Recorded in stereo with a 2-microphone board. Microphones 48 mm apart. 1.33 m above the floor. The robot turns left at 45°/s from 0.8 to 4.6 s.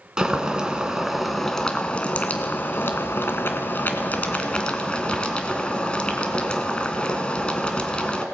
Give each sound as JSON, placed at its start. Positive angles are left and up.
{"t": 0.2, "sound": "boiling", "azimuth_deg": -160, "distance_m": 2.0}